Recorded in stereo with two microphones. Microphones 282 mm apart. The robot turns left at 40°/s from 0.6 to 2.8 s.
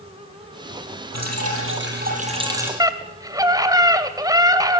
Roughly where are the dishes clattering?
I don't hear dishes clattering.